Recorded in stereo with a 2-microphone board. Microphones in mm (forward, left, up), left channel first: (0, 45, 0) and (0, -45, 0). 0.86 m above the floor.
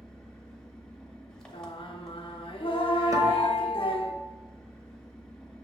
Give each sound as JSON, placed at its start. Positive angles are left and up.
{"t": 0.0, "sound": "an engine running", "side_deg": 5, "distance_m": 0.7}
{"t": 1.5, "sound": "singing", "side_deg": 70, "distance_m": 0.5}
{"t": 3.1, "sound": "a guitar", "side_deg": -35, "distance_m": 0.6}